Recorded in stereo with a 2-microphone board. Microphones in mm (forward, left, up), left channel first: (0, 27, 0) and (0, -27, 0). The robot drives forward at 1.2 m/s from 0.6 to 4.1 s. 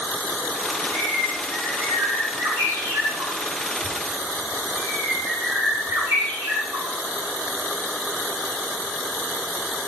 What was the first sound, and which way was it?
A bird, 65° right (ahead or behind).